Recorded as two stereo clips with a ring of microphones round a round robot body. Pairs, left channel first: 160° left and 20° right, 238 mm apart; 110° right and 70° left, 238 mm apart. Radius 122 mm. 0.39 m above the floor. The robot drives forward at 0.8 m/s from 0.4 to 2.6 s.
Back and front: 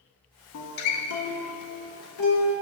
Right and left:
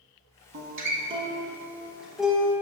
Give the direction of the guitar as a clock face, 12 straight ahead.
8 o'clock.